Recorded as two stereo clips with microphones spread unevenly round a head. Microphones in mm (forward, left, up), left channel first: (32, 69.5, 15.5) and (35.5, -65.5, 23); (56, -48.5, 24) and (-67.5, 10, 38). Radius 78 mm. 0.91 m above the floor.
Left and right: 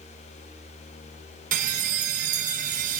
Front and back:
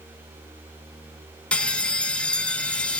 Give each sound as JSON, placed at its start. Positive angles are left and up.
{"t": 1.5, "sound": "a bell", "azimuth_deg": -105, "distance_m": 0.8}